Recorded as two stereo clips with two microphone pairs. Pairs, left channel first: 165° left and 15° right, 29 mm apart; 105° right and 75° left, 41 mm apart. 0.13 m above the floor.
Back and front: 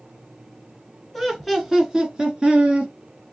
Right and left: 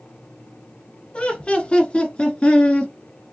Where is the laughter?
100° right, 1.3 m; by 2.9 s 45° right, 1.9 m.